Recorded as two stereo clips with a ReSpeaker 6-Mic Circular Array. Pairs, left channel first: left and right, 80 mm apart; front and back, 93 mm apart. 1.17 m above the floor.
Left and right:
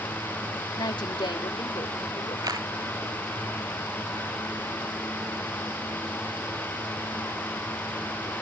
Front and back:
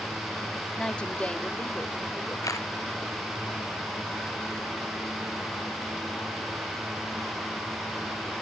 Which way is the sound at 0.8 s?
80° left.